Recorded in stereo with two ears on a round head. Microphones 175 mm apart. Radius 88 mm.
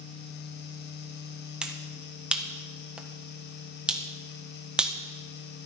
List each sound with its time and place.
1.6 s a finger snap: 5° right (ahead or behind), 1.4 m